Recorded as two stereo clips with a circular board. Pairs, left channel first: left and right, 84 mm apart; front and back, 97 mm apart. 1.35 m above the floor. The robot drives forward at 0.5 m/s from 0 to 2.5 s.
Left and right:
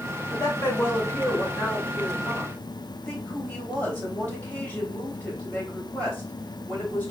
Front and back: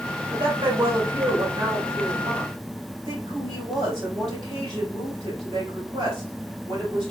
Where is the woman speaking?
145° left, 2.0 m; by 7.1 s 160° left, 3 m.